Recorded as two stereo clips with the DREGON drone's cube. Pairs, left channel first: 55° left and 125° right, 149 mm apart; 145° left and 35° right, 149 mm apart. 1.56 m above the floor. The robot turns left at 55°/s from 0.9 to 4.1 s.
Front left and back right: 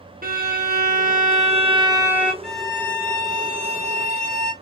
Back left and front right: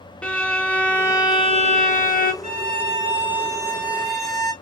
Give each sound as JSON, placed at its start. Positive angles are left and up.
{"t": 0.2, "sound": "a violin", "azimuth_deg": -130, "distance_m": 0.9}
{"t": 2.4, "sound": "a violin", "azimuth_deg": -30, "distance_m": 1.6}